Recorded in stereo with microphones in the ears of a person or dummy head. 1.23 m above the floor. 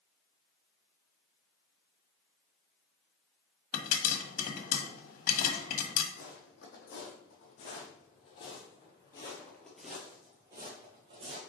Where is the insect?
No insect in this recording.